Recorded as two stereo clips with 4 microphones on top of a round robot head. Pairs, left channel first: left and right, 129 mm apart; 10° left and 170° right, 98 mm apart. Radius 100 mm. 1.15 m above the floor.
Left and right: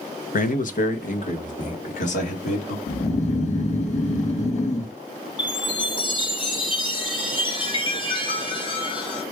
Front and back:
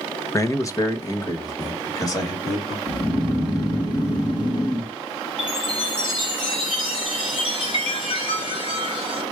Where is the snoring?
55° left, 1.3 m.